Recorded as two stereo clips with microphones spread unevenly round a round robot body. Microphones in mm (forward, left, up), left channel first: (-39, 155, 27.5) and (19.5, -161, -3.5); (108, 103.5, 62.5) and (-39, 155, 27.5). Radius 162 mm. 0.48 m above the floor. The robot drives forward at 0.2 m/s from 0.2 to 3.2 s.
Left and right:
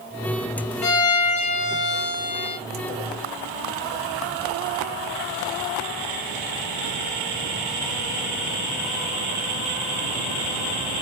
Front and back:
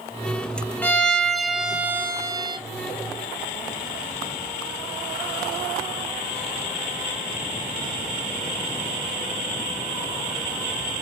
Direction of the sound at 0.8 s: 65° left.